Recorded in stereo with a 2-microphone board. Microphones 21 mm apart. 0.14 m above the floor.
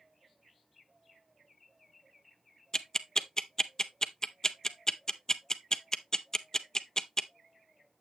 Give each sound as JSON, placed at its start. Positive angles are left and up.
{"t": 2.7, "sound": "ticking", "side_deg": 30, "distance_m": 0.5}